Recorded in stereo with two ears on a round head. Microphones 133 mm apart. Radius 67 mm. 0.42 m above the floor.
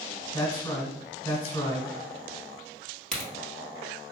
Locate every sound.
0.3 s a man speaking: 15° left (ahead or behind), 1.0 m
3.1 s a crack: 5° left (ahead or behind), 1.6 m